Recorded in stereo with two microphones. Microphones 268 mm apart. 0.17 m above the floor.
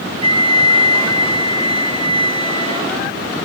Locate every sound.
0.2 s a flute: 20° right (ahead or behind), 1.7 m